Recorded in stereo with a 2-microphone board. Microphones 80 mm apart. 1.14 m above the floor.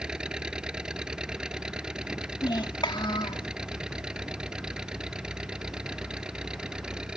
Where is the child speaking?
75° left (ahead or behind).